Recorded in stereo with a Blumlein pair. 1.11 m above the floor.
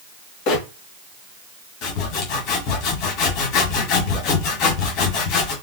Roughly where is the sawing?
Ahead left.